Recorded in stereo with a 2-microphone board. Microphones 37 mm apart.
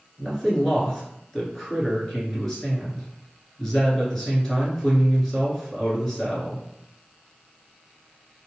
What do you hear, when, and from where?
0.2 s a man speaking: 10° left (ahead or behind), 1.5 m